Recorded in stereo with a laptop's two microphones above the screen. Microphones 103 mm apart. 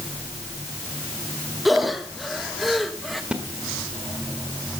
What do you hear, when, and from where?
1.6 s breathing: centre (ahead or behind), 1.2 m
3.3 s a splash: 10° right (ahead or behind), 1.6 m